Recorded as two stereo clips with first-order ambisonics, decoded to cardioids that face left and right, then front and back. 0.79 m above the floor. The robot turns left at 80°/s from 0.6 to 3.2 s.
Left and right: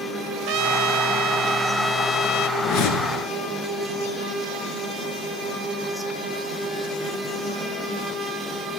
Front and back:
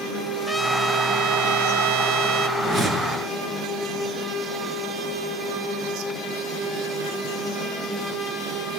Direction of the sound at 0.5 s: 80° right.